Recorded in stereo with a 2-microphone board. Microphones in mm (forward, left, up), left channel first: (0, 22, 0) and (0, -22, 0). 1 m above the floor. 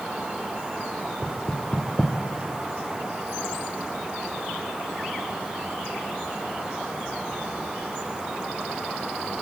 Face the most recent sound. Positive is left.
turn(degrees=20)  # may be behind; listen again after turning